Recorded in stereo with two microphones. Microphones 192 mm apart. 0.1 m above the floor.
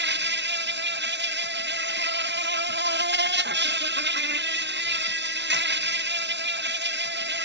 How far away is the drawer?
I don't hear a drawer.